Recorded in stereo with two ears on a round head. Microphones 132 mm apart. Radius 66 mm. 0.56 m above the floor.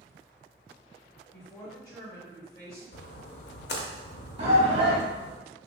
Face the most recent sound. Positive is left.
turn(degrees=-45)  # may be behind; listen again after turning